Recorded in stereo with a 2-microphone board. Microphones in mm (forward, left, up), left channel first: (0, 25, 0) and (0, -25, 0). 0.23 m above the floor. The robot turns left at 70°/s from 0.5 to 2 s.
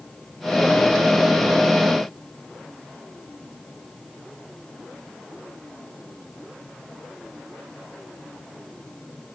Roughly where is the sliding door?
No sliding door in this recording.